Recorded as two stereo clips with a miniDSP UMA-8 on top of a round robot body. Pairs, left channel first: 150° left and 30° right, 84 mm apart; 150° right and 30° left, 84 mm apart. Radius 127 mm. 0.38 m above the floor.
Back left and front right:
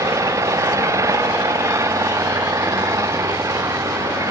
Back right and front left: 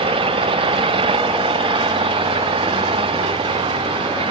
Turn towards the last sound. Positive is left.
turn(degrees=25)